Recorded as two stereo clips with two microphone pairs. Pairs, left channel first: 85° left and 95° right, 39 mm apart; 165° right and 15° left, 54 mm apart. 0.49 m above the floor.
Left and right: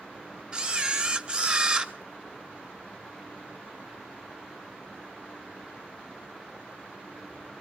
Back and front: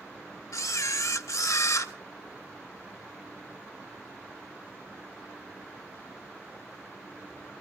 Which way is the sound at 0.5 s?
160° right.